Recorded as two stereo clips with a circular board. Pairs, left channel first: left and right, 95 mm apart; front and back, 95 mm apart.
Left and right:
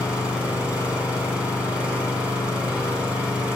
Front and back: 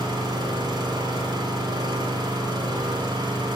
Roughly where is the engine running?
Behind.